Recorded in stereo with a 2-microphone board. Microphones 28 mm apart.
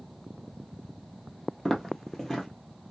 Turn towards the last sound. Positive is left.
turn(degrees=20)  # may be behind; listen again after turning